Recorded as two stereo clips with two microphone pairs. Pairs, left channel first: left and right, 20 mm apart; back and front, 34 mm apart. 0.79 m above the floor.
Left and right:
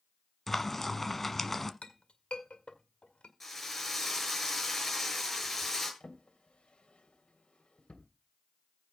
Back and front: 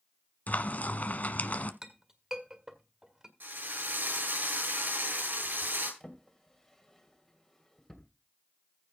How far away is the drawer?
About 2.5 m.